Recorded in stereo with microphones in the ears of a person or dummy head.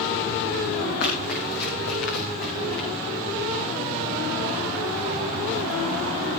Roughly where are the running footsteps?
Left.